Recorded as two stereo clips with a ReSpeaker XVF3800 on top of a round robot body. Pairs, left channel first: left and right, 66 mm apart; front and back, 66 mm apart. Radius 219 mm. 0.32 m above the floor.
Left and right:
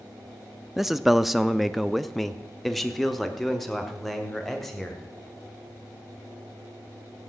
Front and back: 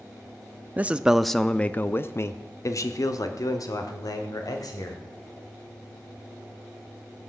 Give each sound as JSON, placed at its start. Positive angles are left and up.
{"t": 0.8, "sound": "a man speaking", "azimuth_deg": -175, "distance_m": 0.9}